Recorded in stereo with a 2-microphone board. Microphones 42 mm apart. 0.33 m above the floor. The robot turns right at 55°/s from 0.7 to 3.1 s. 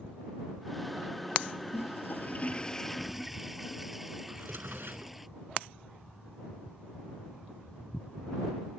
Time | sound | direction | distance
1.7 | a toilet flushing | 110° left | ?
4.3 | a drawer | 60° right (ahead or behind) | ?